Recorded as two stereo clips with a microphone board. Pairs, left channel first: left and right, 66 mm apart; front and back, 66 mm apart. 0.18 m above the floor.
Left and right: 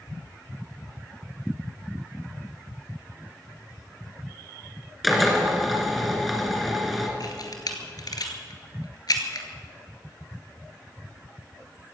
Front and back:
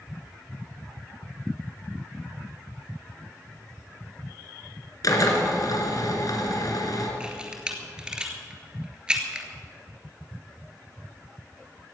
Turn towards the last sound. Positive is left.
turn(degrees=105)